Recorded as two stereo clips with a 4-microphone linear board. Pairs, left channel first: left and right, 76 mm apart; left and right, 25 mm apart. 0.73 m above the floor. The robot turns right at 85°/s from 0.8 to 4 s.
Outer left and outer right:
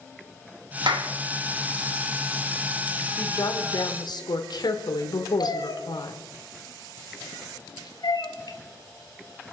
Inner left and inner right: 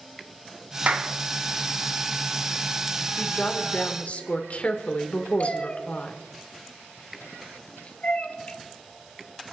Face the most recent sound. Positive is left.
turn(degrees=65)  # may be behind; listen again after turning